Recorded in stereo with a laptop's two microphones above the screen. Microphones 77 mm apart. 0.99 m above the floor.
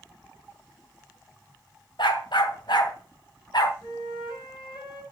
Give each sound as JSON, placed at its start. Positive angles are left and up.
{"t": 2.0, "sound": "a dog barking", "side_deg": 75, "distance_m": 2.0}
{"t": 3.8, "sound": "a flute", "side_deg": 65, "distance_m": 8.5}